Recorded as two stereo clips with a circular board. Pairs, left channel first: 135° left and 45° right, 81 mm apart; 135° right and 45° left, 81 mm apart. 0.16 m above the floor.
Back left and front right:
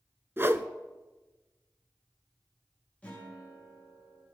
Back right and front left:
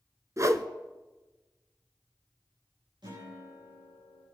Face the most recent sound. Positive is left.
turn(degrees=65)